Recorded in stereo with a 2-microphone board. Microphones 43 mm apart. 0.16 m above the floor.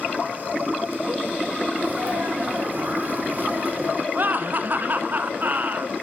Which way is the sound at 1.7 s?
45° right (ahead or behind).